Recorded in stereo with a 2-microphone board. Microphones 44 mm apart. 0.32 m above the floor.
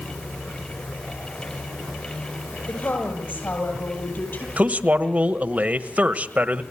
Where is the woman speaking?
55° left (ahead or behind), 9.5 m; by 4.5 s 45° left (ahead or behind), 10 m.